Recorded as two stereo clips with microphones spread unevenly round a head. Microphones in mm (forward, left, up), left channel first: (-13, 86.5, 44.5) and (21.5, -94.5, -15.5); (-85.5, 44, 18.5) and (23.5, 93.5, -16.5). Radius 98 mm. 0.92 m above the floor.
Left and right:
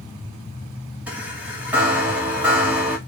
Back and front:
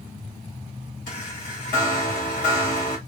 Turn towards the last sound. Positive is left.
turn(degrees=-150)